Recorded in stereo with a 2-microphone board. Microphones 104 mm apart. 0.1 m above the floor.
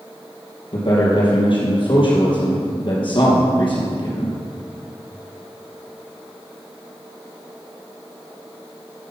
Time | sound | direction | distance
0.7 | a man speaking | 50° left (ahead or behind) | 3.5 m